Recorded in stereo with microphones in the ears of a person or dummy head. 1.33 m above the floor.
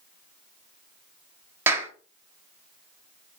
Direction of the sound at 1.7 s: 15° right (ahead or behind).